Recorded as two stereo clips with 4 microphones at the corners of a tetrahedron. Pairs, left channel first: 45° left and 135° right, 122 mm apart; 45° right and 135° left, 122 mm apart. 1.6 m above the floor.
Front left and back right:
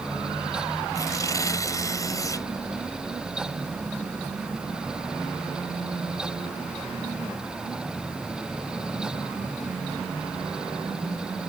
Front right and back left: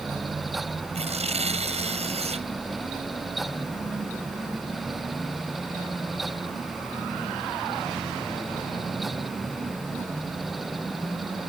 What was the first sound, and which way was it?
Tearing paper, 105° left.